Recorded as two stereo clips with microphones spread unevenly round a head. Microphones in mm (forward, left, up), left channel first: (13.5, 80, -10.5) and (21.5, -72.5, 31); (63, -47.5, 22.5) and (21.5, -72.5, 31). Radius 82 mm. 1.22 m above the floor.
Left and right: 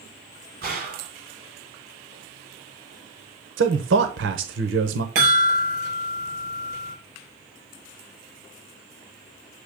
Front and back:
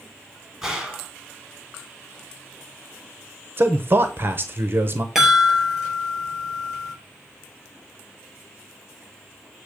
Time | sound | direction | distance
0.6 | a gunshot | 70° right | 3 m
3.6 | a man speaking | 105° right | 0.8 m
5.2 | a chime | 65° right | 4.5 m